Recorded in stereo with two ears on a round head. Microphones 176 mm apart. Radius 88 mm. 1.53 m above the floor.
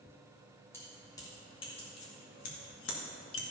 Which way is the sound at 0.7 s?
15° left (ahead or behind).